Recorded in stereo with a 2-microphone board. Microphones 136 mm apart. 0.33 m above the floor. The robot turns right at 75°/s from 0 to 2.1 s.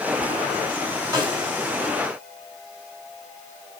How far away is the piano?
No piano in this recording.